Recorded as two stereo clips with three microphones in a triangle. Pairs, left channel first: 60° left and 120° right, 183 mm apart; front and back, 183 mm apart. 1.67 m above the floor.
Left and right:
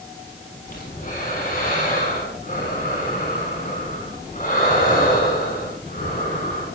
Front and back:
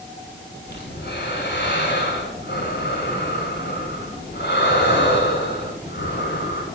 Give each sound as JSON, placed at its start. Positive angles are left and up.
{"t": 0.7, "sound": "breathing", "azimuth_deg": 20, "distance_m": 6.5}